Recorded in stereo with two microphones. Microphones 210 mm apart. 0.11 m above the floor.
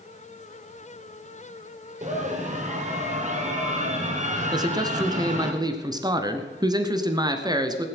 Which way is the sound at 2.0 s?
35° right (ahead or behind).